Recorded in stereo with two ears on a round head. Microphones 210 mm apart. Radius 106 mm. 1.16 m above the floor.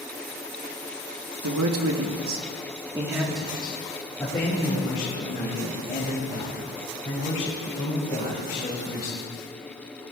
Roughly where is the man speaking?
Right.